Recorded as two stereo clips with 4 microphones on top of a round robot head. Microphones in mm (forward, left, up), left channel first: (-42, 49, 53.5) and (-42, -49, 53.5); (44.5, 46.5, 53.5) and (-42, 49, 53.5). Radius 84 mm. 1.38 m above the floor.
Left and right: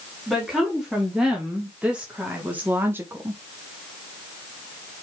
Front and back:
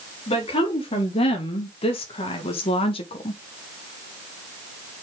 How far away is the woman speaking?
About 3.5 m.